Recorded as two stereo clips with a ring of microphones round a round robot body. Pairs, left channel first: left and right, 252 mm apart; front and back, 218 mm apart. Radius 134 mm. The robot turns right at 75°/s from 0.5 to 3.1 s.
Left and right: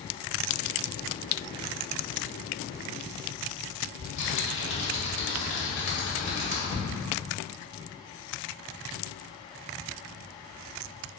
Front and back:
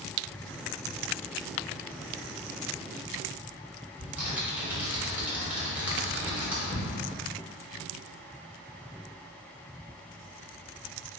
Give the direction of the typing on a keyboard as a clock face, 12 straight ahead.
9 o'clock.